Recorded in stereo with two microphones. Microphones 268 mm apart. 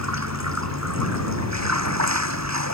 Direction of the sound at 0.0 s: 75° right (ahead or behind).